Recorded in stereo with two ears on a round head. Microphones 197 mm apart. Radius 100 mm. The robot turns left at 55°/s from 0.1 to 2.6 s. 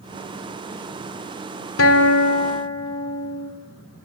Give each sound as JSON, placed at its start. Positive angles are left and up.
{"t": 1.8, "sound": "a guitar", "azimuth_deg": 70, "distance_m": 2.5}